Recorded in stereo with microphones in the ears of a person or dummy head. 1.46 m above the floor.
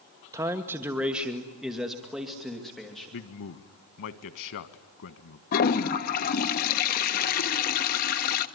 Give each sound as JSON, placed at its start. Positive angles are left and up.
{"t": 0.3, "sound": "a man speaking", "side_deg": -20, "distance_m": 1.0}
{"t": 3.1, "sound": "a man speaking", "side_deg": 65, "distance_m": 1.3}
{"t": 5.5, "sound": "a toilet flushing", "side_deg": 45, "distance_m": 1.2}